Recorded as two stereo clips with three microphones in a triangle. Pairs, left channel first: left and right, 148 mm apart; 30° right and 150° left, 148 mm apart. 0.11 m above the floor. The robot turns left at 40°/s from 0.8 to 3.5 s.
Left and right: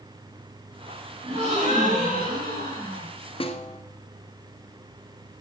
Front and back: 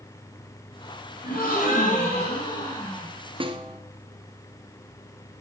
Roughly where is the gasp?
Ahead right.